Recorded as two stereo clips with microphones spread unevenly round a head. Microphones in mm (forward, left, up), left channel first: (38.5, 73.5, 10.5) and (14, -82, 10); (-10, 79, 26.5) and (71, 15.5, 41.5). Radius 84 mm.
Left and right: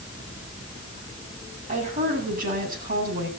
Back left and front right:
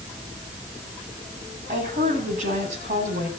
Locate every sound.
1.7 s a woman speaking: 60° right, 9 m; by 3.3 s 75° right, 8.5 m